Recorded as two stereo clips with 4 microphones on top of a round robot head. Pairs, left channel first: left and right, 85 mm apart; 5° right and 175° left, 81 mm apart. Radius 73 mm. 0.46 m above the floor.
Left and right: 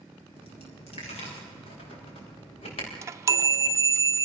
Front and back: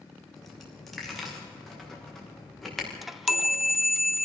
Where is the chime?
100° right, 0.5 m.